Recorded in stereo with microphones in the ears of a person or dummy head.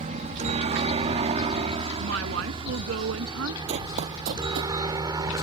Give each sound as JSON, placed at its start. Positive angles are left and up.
{"t": 0.0, "sound": "a helicopter", "side_deg": -35}
{"t": 2.0, "sound": "a woman speaking", "side_deg": -75}
{"t": 3.7, "sound": "running footsteps", "side_deg": -40}